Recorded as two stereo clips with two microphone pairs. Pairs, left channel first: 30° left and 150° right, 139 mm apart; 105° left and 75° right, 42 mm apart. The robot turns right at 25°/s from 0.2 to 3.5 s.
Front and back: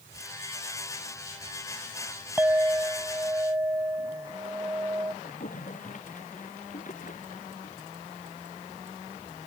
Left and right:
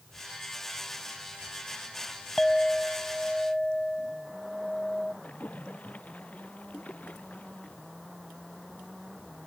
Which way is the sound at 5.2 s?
50° left.